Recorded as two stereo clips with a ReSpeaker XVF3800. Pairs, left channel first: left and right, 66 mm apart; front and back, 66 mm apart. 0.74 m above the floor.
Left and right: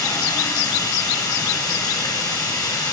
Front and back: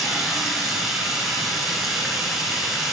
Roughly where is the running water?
Left.